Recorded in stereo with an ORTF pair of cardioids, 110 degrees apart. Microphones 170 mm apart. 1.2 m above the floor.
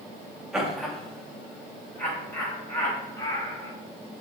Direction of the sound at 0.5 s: 5° right.